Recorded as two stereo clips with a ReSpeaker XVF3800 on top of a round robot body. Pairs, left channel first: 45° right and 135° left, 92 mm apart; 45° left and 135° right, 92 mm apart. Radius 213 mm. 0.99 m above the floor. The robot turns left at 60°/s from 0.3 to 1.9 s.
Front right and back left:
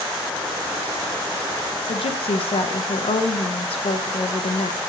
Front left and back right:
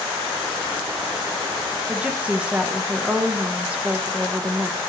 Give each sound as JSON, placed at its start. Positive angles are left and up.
{"t": 1.9, "sound": "a woman speaking", "azimuth_deg": -55, "distance_m": 0.9}